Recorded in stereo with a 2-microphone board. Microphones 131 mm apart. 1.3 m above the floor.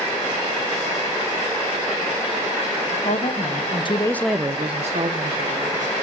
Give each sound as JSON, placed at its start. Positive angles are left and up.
{"t": 2.9, "sound": "a woman speaking", "side_deg": 70, "distance_m": 1.7}